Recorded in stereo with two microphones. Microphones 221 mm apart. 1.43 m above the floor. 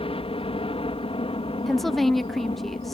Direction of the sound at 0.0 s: 25° left (ahead or behind).